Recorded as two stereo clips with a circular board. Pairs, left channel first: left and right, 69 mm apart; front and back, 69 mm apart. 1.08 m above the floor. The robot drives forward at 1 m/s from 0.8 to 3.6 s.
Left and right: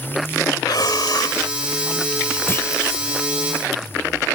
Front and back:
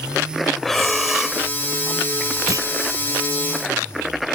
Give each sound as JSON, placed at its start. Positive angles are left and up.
{"t": 0.6, "sound": "breathing", "azimuth_deg": 85}
{"t": 2.5, "sound": "a clunk", "azimuth_deg": 145}